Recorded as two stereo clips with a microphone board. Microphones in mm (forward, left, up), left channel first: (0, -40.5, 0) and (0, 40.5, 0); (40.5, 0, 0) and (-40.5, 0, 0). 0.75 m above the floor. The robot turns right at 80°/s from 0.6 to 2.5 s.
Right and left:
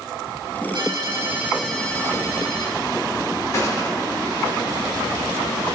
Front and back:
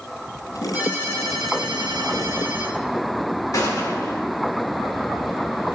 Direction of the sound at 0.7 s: 110° left.